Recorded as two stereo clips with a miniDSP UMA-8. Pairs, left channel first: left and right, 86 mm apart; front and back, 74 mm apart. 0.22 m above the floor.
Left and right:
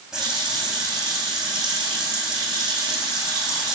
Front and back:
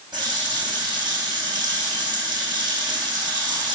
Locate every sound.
0.1 s a running tap: 170° right, 7.5 m